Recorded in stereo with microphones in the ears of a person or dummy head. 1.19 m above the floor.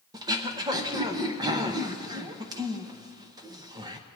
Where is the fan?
No fan in this recording.